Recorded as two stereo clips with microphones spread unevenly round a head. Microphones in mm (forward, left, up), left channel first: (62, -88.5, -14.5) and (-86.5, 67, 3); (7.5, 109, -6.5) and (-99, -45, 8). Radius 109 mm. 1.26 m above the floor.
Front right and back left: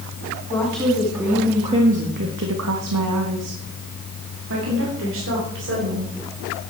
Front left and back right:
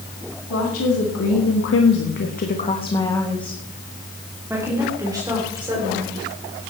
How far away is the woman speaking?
About 2.5 m.